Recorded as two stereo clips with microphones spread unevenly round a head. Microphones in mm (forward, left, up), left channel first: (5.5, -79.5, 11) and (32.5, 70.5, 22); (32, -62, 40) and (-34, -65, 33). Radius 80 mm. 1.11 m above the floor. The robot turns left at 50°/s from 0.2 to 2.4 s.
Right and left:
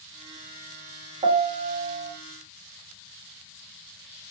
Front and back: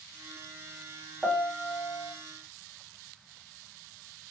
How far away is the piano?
About 0.6 m.